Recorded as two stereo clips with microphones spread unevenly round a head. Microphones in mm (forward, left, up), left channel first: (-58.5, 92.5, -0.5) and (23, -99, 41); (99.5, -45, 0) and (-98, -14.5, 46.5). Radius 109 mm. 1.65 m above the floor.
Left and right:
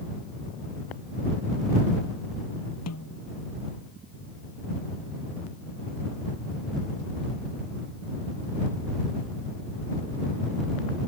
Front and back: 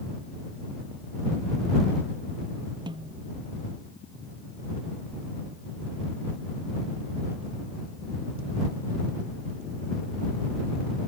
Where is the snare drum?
100° left.